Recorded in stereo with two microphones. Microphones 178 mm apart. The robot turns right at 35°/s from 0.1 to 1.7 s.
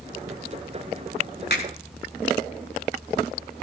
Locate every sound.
1.5 s a finger snap: 70° left (ahead or behind), 6.5 m; by 1.6 s 75° left (ahead or behind), 6.5 m